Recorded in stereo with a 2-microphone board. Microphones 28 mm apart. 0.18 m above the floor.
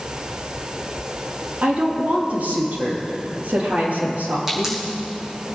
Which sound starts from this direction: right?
A woman speaking, at 1.6 s.